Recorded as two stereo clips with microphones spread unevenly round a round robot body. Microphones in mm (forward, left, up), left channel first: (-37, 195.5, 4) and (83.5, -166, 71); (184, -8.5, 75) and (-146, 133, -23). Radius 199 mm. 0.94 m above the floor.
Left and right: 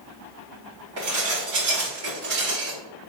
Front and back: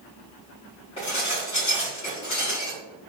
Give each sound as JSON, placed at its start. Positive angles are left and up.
{"t": 1.0, "sound": "dishes clattering", "azimuth_deg": -100, "distance_m": 2.0}